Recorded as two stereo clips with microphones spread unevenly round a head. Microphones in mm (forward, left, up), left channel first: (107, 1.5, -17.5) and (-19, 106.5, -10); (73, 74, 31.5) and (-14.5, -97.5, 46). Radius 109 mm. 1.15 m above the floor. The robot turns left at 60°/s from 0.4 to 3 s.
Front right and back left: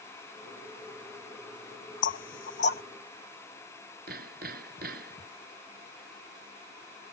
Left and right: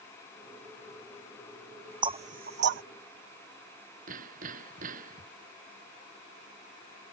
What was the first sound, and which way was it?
Knocking, 50° right.